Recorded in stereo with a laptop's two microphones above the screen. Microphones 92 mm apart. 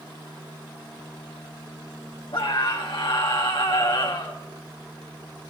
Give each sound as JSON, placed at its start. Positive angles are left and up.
{"t": 2.3, "sound": "a scream", "side_deg": 70, "distance_m": 4.0}